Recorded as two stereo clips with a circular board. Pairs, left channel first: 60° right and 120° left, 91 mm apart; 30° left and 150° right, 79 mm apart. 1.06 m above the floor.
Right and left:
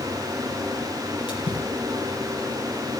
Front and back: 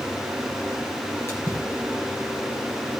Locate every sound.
1.3 s a splash: 25° right, 5.5 m